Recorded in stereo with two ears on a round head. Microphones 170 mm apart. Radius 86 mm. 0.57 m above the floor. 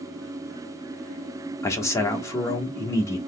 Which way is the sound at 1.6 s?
15° left (ahead or behind).